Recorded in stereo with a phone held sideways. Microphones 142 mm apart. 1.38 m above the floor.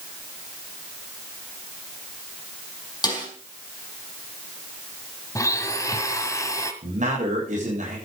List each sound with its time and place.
3.0 s a snare drum: 30° left (ahead or behind), 5.5 m
5.3 s a blender: 20° left (ahead or behind), 1.7 m
6.8 s a man speaking: 60° right (ahead or behind), 8 m